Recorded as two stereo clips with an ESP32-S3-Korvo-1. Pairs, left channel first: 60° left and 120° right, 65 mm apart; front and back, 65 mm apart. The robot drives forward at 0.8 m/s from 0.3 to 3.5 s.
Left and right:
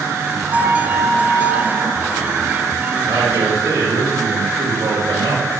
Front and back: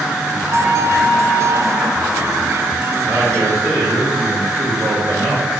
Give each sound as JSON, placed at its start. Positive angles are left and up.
{"t": 0.5, "sound": "a flute", "azimuth_deg": -135, "distance_m": 1.0}
{"t": 3.0, "sound": "a man speaking", "azimuth_deg": -130, "distance_m": 1.6}